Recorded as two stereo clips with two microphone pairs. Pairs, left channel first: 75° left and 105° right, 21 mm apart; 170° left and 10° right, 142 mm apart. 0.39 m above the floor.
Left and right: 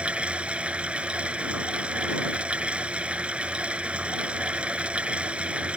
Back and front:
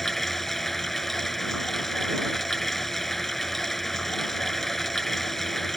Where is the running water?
105° right.